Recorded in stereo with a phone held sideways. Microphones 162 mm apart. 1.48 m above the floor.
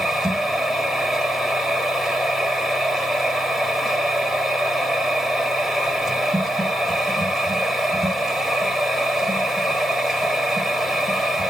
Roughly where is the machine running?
Centre.